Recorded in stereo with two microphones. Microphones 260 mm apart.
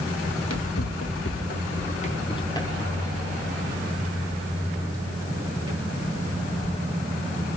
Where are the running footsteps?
85° left, 1.6 m; by 6.8 s 20° right (ahead or behind), 5 m.